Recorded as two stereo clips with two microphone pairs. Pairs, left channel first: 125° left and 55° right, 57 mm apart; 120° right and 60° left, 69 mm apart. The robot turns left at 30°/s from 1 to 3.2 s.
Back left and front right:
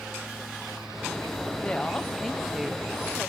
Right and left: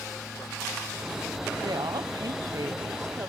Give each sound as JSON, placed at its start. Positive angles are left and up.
{"t": 1.6, "sound": "a woman speaking", "azimuth_deg": 60, "distance_m": 0.8}